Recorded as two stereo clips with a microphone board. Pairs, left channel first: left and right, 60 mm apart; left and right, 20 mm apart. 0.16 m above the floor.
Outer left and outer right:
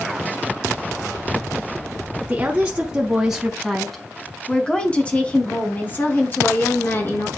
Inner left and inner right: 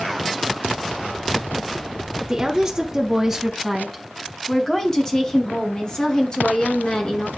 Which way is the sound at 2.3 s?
20° right (ahead or behind).